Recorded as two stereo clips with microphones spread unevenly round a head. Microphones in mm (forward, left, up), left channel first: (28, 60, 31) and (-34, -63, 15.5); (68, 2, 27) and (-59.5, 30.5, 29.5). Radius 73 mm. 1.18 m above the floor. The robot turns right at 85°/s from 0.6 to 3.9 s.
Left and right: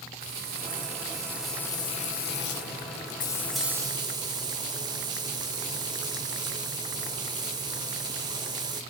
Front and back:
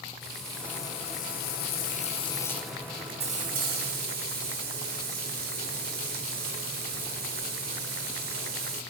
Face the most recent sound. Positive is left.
turn(degrees=180)